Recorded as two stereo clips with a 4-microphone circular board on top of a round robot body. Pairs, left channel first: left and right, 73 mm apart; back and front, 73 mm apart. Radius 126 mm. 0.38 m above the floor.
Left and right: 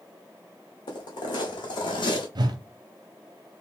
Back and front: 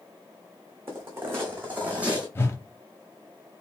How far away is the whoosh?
About 0.9 m.